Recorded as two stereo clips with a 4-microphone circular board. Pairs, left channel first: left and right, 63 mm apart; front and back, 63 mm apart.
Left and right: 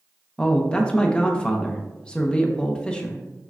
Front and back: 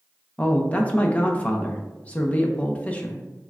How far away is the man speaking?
About 0.6 m.